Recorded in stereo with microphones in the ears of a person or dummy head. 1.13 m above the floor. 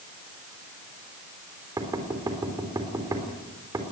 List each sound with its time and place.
1.8 s knocking: 15° right (ahead or behind), 3 m